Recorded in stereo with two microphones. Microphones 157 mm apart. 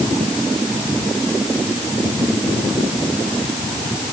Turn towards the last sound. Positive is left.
No sound to turn to.